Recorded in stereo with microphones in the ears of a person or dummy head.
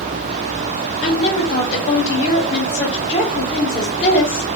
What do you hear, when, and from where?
1.0 s a woman speaking: 30° left (ahead or behind), 1.1 m